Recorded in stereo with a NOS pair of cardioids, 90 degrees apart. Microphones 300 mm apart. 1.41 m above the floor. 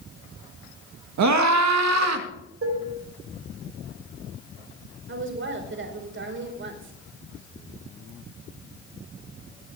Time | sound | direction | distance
1.2 | a scream | 70° right | 2 m
2.6 | dishes clattering | 50° right | 4.5 m
5.1 | a woman speaking | 40° right | 4.5 m